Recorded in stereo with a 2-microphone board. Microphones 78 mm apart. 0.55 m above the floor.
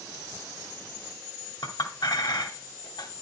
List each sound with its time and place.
1.6 s a clink: 70° left (ahead or behind), 2 m